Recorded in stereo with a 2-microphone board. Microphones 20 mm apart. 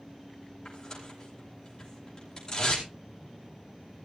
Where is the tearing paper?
40° left (ahead or behind), 5.5 m.